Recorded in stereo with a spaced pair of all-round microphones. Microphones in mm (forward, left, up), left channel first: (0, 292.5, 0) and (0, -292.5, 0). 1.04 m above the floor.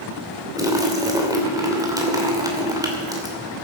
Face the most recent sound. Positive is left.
turn(degrees=-5)  # may be behind; listen again after turning